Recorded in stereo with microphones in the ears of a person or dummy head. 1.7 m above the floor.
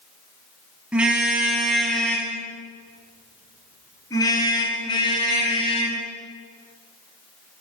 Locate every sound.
0.9 s a car horn: 10° right (ahead or behind), 8 m; by 6.0 s 30° left (ahead or behind), 11.5 m